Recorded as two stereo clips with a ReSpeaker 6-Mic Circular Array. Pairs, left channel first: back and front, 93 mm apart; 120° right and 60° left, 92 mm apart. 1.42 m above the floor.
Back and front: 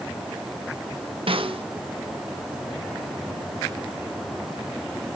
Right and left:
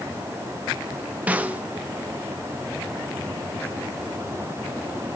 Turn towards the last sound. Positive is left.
turn(degrees=-15)